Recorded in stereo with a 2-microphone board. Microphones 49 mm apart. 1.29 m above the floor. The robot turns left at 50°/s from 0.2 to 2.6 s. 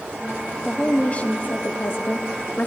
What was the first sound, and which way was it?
A woman speaking, 160° left.